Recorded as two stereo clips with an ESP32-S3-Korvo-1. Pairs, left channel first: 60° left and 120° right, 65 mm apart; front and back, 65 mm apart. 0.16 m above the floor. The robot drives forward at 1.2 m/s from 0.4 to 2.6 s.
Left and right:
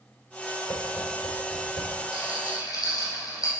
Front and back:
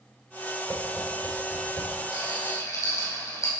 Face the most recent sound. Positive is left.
turn(degrees=40)